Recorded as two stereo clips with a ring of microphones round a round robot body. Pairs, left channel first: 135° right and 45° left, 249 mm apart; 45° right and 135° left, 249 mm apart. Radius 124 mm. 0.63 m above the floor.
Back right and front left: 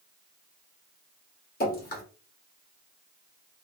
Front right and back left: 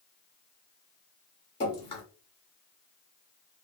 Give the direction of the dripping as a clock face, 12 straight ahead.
3 o'clock.